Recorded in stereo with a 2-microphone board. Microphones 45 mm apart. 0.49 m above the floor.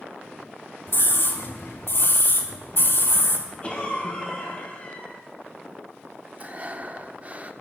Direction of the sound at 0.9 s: 55° left (ahead or behind).